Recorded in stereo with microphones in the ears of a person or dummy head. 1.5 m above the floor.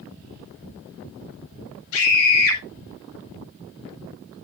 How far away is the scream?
About 9 m.